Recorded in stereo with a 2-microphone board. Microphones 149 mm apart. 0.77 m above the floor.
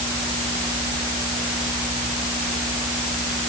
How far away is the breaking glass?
No breaking glass in this recording.